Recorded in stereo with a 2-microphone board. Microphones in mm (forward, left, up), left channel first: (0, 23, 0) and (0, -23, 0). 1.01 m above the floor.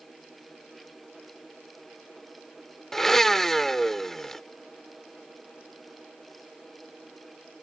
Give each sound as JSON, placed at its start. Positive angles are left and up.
{"t": 2.9, "sound": "a blender", "side_deg": 10}